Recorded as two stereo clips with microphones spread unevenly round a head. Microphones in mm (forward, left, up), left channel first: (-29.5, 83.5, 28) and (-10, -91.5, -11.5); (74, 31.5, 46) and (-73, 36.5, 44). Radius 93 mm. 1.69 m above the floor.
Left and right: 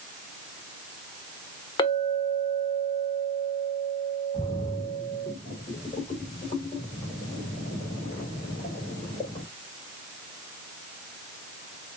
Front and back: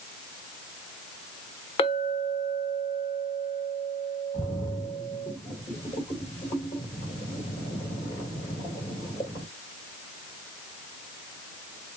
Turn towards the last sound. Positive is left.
turn(degrees=45)